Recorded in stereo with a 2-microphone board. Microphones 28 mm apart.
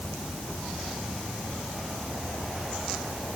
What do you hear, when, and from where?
Only background noise.